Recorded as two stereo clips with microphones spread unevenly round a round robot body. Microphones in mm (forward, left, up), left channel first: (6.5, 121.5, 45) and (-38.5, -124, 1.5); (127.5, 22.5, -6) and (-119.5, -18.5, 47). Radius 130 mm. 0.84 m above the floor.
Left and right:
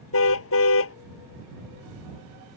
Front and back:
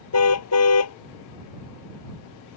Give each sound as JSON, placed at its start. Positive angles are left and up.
{"t": 0.1, "sound": "a car horn", "azimuth_deg": 40}